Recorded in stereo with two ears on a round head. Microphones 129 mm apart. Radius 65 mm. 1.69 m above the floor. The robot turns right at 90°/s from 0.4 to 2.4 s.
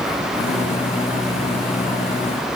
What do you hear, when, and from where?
Only background noise.